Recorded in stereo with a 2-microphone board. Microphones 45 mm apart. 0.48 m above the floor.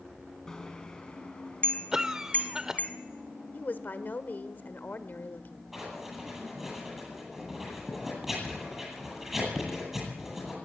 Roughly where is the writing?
Centre.